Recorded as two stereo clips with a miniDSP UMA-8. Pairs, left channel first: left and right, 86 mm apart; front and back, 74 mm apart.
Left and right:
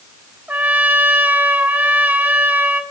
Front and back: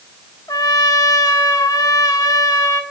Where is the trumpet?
25° right, 1.4 m.